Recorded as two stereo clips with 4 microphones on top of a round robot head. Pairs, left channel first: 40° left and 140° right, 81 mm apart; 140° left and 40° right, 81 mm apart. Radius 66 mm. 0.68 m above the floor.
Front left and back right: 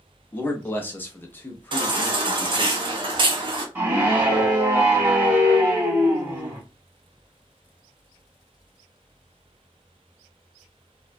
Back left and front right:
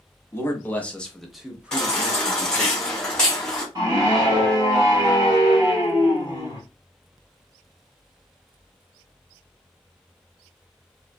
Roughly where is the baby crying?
Behind right.